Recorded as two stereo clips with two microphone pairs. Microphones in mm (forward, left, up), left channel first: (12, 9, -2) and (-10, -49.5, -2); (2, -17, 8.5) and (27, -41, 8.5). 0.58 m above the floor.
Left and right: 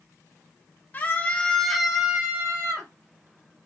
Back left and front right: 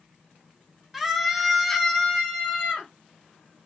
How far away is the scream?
About 0.9 m.